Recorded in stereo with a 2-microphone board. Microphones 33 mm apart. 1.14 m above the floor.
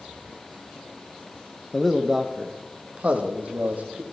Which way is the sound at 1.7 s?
10° left (ahead or behind).